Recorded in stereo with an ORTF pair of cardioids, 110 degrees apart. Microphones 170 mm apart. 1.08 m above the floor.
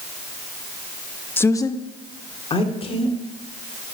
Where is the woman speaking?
10° left, 0.9 m; by 3.1 s 35° left, 3.5 m.